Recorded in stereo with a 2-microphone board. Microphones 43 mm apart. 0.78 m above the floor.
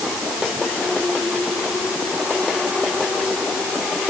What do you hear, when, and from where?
Only background noise.